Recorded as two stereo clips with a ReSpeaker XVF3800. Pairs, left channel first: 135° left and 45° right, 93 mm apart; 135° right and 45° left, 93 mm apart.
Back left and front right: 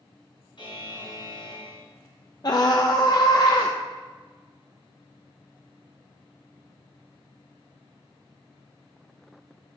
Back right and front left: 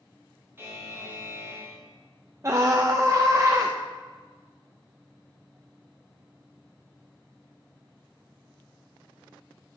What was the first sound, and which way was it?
A buzzer, 110° left.